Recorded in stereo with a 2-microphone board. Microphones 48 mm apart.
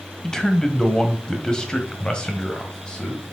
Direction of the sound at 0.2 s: 10° left (ahead or behind).